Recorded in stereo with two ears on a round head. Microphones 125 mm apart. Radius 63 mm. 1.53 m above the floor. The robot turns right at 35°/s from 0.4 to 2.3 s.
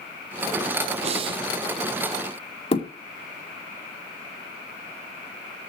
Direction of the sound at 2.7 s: 45° left (ahead or behind).